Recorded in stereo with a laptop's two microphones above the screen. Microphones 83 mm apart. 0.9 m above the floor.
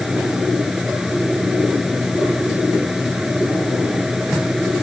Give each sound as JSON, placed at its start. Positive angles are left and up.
{"t": 0.0, "sound": "a fan", "side_deg": -5}